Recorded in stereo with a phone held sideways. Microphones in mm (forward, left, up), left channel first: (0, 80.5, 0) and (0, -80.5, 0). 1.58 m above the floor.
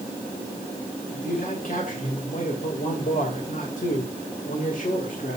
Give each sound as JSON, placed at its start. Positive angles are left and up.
{"t": 1.1, "sound": "a man speaking", "side_deg": 55, "distance_m": 2.5}